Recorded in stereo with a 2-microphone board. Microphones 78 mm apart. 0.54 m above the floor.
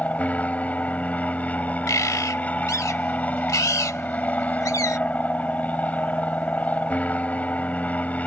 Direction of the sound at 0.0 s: 20° left (ahead or behind).